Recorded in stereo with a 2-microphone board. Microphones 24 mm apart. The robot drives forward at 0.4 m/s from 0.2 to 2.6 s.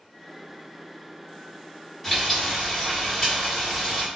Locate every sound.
2.0 s frying: 5° left (ahead or behind), 1.4 m